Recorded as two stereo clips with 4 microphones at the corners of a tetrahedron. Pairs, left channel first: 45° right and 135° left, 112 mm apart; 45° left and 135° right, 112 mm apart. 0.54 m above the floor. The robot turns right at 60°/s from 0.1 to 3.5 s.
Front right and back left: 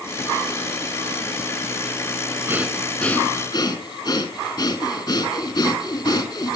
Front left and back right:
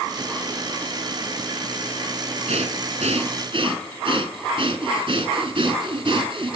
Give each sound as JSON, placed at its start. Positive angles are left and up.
{"t": 2.5, "sound": "breathing", "azimuth_deg": -155, "distance_m": 3.0}